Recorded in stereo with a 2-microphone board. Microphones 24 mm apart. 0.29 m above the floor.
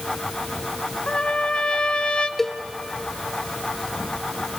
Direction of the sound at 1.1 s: 40° left (ahead or behind).